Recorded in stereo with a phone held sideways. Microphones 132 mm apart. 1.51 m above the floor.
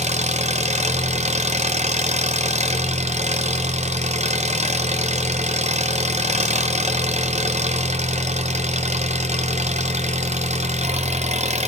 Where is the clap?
I don't hear a clap.